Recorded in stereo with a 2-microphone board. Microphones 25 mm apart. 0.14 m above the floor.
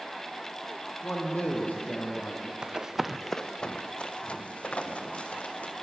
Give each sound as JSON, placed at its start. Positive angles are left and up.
{"t": 1.0, "sound": "a man speaking", "side_deg": 75, "distance_m": 4.5}
{"t": 2.6, "sound": "running footsteps", "side_deg": -45, "distance_m": 1.0}